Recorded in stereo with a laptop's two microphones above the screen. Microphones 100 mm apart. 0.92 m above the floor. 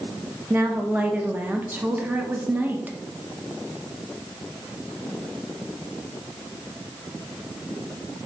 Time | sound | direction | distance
0.5 | a woman speaking | 20° right (ahead or behind) | 0.6 m